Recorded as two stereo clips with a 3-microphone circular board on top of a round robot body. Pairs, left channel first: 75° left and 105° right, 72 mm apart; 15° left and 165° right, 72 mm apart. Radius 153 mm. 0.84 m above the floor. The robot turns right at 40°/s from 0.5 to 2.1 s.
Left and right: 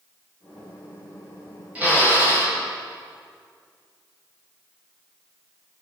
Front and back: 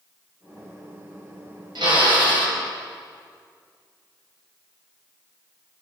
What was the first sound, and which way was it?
A drill, 175° right.